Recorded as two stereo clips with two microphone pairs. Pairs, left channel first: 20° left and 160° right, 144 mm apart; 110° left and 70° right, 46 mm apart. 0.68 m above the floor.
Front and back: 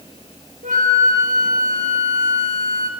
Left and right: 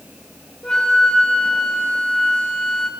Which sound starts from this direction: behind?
A flute, at 0.6 s.